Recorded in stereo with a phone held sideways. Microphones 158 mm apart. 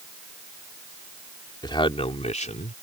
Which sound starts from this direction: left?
A man speaking, at 1.6 s.